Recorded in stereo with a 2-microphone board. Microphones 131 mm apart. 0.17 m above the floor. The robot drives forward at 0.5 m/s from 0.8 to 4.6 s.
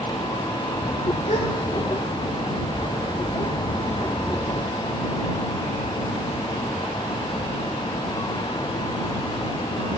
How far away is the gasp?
About 2.5 m.